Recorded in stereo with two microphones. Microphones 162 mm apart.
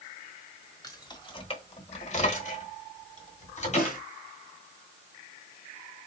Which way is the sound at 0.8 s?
20° left (ahead or behind).